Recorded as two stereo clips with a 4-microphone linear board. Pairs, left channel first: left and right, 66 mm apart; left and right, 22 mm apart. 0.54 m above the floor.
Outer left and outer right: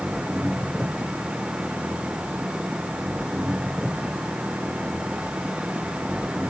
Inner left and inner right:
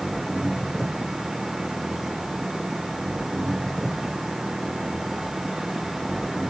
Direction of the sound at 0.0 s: 10° right (ahead or behind).